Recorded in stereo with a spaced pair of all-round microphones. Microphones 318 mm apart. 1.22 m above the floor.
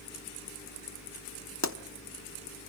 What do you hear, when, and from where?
1.6 s a pop: 55° left (ahead or behind), 1.1 m